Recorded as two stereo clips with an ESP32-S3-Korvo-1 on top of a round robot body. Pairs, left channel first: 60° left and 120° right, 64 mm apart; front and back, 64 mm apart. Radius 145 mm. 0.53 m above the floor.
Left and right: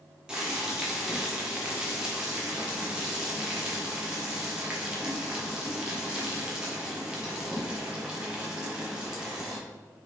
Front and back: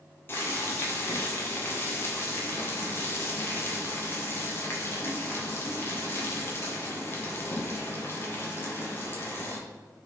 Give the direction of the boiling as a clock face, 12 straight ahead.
2 o'clock.